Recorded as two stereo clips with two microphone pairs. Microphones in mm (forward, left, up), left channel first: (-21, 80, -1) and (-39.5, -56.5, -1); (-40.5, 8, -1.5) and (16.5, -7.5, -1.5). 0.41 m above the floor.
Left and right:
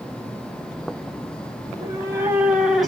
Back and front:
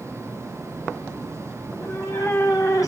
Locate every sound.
1.6 s a cat meowing: 160° right, 1.9 m; by 2.9 s 170° left, 1.6 m